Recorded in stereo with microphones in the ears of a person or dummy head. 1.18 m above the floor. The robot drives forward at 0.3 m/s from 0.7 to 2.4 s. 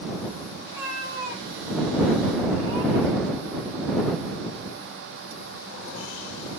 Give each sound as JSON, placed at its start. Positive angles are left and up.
{"t": 0.6, "sound": "a cat meowing", "side_deg": -15, "distance_m": 0.9}